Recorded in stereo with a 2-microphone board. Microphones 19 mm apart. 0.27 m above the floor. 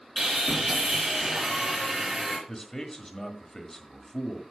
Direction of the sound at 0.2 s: 30° right (ahead or behind).